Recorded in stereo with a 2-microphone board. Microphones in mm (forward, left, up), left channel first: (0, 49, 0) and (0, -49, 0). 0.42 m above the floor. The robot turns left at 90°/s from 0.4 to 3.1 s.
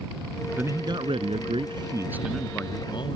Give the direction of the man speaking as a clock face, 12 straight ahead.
1 o'clock.